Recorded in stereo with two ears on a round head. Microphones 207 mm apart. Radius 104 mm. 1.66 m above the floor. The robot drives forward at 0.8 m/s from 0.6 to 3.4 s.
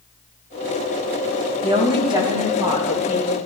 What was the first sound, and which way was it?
A woman speaking, 30° right (ahead or behind).